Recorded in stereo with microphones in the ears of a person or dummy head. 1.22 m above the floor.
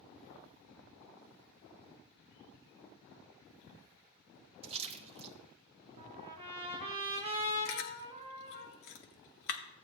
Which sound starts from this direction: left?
Chewing, at 7.7 s.